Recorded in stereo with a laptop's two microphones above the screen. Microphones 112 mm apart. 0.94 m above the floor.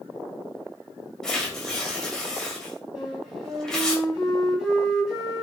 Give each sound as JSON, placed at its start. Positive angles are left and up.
{"t": 1.2, "sound": "tearing paper", "side_deg": 5, "distance_m": 3.0}
{"t": 3.0, "sound": "a flute", "side_deg": -5, "distance_m": 4.0}